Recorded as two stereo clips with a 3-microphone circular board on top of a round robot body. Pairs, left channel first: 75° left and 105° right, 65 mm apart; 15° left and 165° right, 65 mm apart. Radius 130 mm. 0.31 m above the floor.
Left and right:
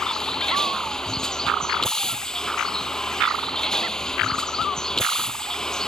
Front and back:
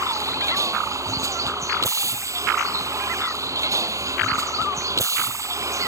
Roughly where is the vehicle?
Behind left.